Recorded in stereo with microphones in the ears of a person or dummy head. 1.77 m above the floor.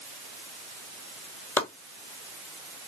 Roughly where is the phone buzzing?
I don't hear a phone buzzing.